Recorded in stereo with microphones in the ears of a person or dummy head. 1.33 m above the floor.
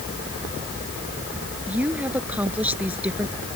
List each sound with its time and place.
1.7 s a woman speaking: 5° right (ahead or behind)